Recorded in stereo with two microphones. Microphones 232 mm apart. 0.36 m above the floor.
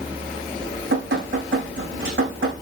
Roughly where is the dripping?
Right.